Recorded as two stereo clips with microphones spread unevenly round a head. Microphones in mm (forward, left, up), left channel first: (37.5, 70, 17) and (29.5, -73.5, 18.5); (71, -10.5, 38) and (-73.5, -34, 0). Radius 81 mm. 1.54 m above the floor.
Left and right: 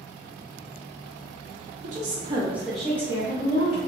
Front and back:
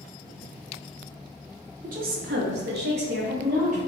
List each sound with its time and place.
1.8 s a woman speaking: 135° right, 1.0 m; by 3.8 s 145° left, 1.6 m